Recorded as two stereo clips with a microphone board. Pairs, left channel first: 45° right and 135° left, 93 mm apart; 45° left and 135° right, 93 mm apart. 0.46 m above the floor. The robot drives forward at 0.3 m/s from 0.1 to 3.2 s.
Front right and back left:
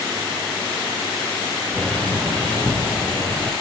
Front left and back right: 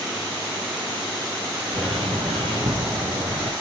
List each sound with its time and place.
1.7 s a bird: 120° right, 7.5 m; by 3.5 s 125° right, 7.5 m